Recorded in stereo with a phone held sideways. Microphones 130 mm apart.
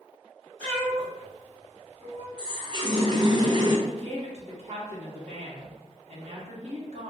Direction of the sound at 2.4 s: 35° right (ahead or behind).